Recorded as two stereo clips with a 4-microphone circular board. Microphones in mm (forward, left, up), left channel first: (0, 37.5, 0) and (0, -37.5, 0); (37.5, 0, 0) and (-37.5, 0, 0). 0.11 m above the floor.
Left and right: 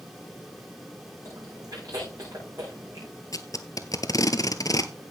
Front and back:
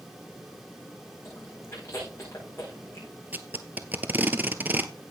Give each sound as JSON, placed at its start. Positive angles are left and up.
{"t": 1.2, "sound": "chewing", "azimuth_deg": -55, "distance_m": 7.0}
{"t": 3.3, "sound": "tape being pulled", "azimuth_deg": 115, "distance_m": 0.9}